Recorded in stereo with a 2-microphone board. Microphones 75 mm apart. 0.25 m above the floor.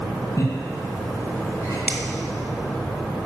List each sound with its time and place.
0.4 s laughter: 45° left (ahead or behind), 3 m
1.9 s a finger snap: 20° right (ahead or behind), 0.9 m